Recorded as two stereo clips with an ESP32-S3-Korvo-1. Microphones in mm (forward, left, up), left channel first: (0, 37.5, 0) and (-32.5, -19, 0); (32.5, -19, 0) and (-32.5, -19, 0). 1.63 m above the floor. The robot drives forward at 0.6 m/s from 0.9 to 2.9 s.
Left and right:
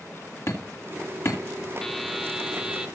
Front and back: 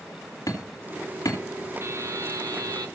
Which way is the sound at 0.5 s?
20° left.